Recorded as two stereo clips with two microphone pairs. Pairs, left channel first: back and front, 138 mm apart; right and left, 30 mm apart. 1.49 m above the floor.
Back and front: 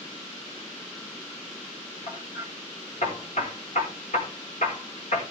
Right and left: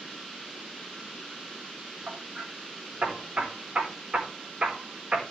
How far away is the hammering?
About 4.5 m.